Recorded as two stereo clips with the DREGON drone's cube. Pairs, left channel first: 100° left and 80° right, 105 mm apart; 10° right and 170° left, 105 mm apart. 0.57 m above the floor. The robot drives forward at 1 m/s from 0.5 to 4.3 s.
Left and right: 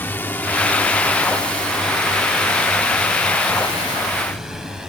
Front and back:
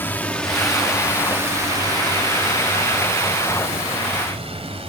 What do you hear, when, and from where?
0.0 s a drone: 45° left; by 4.9 s 165° right